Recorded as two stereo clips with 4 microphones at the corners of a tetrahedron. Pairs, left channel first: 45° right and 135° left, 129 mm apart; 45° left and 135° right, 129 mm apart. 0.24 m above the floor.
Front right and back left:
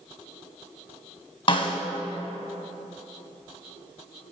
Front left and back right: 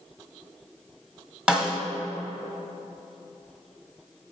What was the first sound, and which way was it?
A snare drum, 55° right.